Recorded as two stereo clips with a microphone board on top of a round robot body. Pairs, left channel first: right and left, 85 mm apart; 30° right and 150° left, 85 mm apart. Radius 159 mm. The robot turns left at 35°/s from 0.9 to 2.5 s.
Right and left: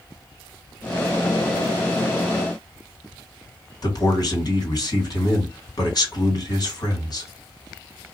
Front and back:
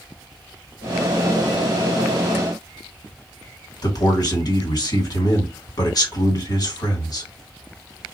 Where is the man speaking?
60° right, 2 m.